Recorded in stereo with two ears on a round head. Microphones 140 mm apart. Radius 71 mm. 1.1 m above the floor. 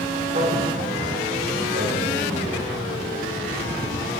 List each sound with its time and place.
0.3 s a man speaking: 55° right (ahead or behind), 3.5 m; by 2.7 s 80° right, 5 m